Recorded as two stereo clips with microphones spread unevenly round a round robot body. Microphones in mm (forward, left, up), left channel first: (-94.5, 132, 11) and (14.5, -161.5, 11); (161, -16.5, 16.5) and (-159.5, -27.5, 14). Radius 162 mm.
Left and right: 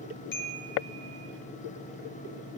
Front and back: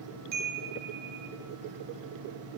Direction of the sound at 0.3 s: 140° left.